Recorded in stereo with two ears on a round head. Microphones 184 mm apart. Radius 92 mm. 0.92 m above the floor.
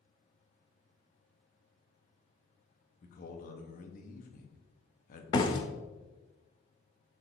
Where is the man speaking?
45° left (ahead or behind), 1.0 m.